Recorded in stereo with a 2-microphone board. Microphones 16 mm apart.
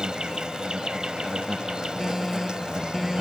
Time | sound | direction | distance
0.0 | an insect | 50° right (ahead or behind) | ?
2.0 | an alarm | centre (ahead or behind) | ?